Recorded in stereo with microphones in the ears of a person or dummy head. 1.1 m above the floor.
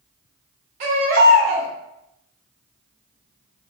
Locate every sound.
0.8 s a baby crying: 50° right (ahead or behind), 1.6 m